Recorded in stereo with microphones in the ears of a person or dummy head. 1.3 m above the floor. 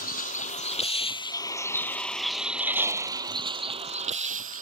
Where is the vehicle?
45° left (ahead or behind); by 4.6 s 45° right (ahead or behind).